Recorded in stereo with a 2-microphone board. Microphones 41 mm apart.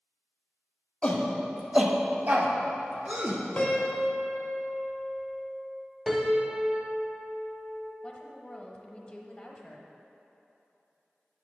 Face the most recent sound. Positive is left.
turn(degrees=25)  # may be behind; listen again after turning